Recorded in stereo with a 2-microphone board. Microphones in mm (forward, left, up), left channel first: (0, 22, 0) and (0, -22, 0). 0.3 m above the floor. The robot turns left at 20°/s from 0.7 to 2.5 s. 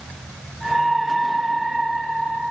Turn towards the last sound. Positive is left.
No sound to turn to.